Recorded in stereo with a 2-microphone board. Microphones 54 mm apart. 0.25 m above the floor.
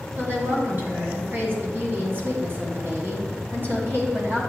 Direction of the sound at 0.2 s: 40° right (ahead or behind).